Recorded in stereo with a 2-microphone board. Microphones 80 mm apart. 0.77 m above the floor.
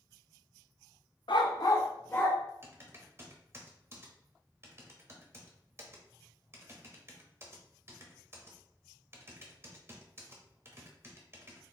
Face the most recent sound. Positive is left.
turn(degrees=-35)  # may be behind; listen again after turning